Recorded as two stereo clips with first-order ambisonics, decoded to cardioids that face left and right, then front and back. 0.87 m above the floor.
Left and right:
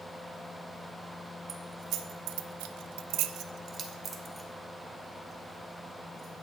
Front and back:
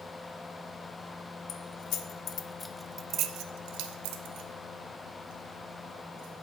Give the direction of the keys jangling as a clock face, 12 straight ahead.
1 o'clock.